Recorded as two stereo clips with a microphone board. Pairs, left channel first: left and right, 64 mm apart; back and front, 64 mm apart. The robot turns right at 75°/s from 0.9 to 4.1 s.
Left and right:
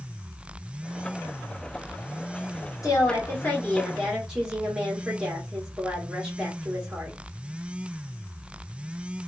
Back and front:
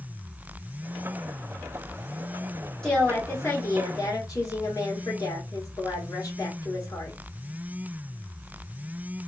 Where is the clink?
I don't hear a clink.